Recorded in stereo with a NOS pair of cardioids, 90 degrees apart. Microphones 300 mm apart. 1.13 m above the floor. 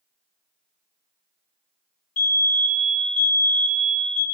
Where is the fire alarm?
60° left, 3 m.